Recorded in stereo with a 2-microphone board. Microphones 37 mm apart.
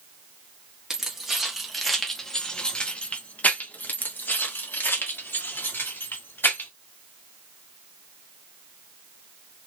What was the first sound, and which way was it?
Keys jangling, 15° right (ahead or behind).